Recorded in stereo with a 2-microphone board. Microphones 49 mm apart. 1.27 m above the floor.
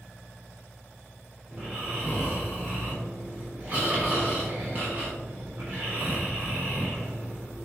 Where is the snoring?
30° right (ahead or behind), 3.5 m.